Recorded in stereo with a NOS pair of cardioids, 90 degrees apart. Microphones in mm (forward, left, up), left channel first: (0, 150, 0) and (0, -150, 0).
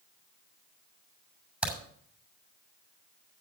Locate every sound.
1.6 s a crack: 5° right, 7 m